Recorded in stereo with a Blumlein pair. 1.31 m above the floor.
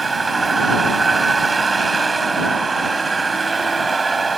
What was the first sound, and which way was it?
A vehicle, 15° right.